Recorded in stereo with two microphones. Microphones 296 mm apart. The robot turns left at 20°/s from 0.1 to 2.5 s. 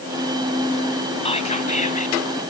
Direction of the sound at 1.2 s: 20° left (ahead or behind).